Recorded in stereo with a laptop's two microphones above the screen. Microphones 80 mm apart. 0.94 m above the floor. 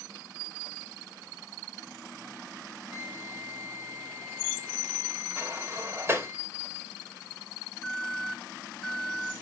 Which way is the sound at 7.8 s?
10° left (ahead or behind).